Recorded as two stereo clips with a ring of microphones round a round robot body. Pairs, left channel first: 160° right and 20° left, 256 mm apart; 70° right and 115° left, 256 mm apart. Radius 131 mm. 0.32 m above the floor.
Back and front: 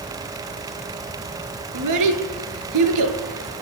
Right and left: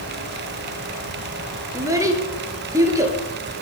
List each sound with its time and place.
1.7 s a child speaking: 35° left, 3 m